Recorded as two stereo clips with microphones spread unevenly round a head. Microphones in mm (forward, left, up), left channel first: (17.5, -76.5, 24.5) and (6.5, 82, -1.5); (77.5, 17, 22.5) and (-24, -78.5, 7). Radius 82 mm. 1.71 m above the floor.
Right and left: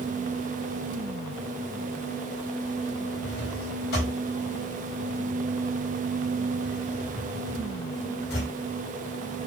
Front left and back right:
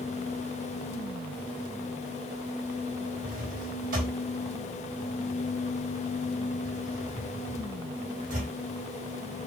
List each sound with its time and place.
3.2 s a drawer: 110° right, 4.5 m